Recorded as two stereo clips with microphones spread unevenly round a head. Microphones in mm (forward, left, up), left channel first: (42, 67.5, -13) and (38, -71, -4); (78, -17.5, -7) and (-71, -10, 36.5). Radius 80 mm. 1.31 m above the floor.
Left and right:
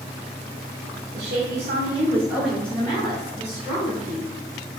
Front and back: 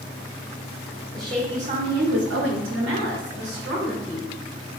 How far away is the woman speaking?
About 0.7 m.